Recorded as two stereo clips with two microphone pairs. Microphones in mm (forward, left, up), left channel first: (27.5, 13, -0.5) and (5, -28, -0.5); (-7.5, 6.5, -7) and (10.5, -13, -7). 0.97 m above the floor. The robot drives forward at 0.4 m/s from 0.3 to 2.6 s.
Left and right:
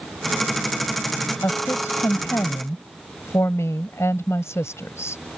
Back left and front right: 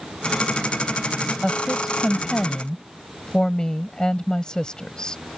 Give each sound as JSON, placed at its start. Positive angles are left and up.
{"t": 1.4, "sound": "a woman speaking", "azimuth_deg": 70}